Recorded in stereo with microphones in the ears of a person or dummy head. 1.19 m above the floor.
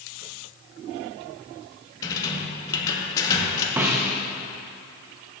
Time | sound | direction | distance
2.0 | a rattle | 20° left (ahead or behind) | 1.1 m
3.8 | a snare drum | 20° right (ahead or behind) | 0.9 m